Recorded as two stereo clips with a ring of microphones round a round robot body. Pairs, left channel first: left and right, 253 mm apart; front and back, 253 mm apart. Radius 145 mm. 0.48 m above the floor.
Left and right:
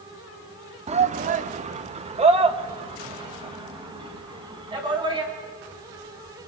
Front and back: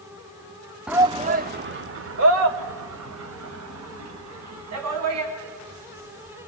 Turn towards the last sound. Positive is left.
turn(degrees=-160)